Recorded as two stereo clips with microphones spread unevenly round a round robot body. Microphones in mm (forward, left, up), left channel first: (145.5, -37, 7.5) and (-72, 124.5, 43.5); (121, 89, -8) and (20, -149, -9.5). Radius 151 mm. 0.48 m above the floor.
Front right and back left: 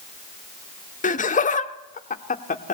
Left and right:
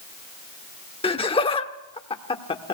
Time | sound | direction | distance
1.0 | laughter | 5° left | 1.0 m